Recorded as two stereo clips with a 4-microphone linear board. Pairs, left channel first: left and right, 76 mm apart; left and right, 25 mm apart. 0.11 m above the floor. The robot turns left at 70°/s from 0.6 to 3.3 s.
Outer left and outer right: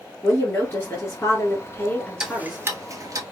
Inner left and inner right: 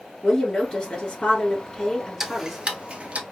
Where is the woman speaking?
140° left, 1.3 m; by 2.6 s straight ahead, 1.3 m.